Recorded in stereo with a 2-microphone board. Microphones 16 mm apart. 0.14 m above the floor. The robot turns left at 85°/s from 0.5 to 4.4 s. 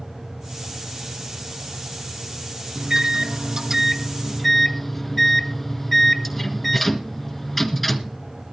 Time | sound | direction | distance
2.8 | a microwave | 45° right | 1.5 m